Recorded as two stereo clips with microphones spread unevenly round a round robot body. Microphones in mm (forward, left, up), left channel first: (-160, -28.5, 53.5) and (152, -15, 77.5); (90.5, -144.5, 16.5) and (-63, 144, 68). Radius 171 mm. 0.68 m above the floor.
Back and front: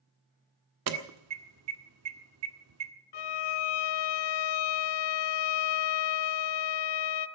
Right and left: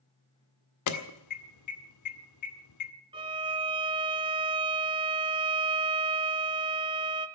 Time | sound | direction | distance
0.9 | an alarm | 35° right | 1.7 m
3.1 | a violin | 170° right | 0.8 m